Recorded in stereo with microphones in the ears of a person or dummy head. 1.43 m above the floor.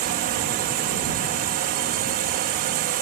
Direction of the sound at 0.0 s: 45° right (ahead or behind).